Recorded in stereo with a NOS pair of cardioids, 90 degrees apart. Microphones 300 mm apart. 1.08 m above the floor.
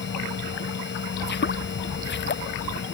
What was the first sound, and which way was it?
A machine running, 40° left.